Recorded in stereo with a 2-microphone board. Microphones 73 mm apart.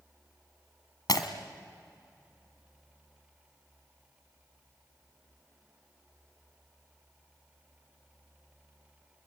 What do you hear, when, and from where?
1.1 s breaking glass: 65° left (ahead or behind), 1.8 m